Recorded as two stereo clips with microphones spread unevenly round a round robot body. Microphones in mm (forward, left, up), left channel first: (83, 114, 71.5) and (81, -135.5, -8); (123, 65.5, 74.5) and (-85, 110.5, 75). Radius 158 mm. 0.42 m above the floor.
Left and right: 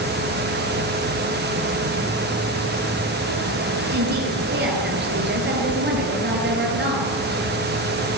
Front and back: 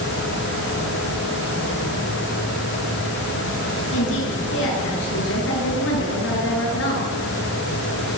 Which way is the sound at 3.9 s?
45° right.